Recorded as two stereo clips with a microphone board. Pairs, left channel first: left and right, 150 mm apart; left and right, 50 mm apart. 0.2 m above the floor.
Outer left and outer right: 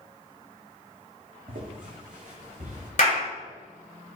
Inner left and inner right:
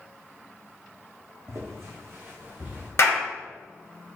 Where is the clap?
55° left (ahead or behind), 1.7 m.